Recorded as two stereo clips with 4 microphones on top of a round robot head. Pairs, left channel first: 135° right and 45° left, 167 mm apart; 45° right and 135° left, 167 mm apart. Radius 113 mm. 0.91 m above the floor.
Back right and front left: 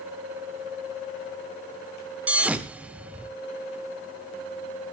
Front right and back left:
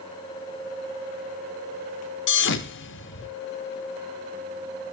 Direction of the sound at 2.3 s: 40° right.